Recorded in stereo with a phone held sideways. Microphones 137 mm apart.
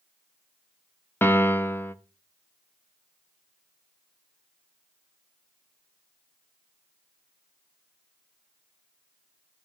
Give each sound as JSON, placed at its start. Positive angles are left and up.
{"t": 1.2, "sound": "a piano", "side_deg": 15, "distance_m": 0.7}